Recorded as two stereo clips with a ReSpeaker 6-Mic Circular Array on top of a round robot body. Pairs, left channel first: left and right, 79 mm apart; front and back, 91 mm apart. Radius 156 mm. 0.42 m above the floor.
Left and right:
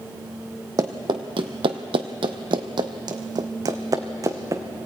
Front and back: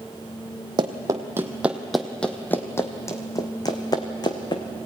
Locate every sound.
0.8 s running footsteps: 135° right, 0.9 m; by 4.6 s 40° right, 1.9 m